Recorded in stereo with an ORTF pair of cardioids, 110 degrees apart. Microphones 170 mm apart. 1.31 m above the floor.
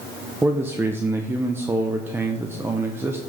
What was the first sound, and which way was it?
A man speaking, 15° right.